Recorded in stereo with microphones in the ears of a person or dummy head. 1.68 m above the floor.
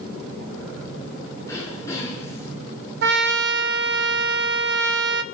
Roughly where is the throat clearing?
Centre.